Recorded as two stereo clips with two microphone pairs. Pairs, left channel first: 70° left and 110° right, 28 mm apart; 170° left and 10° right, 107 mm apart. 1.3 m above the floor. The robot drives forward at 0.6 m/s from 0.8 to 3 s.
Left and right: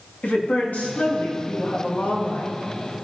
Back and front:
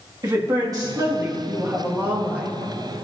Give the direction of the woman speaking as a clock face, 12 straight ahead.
11 o'clock.